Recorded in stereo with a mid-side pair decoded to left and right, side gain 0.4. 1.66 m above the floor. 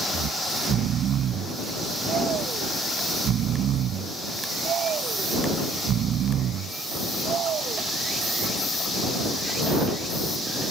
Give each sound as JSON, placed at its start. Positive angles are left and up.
{"t": 0.1, "sound": "snoring", "azimuth_deg": -70}